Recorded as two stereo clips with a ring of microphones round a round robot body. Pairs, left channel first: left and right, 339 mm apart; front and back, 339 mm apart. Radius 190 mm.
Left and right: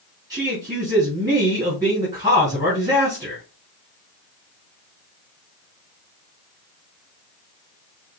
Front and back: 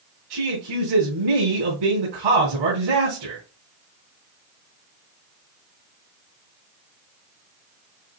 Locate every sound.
0.3 s a man speaking: 170° right, 3.5 m